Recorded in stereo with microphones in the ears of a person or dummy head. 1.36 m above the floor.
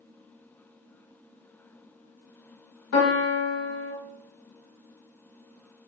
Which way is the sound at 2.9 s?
70° left (ahead or behind).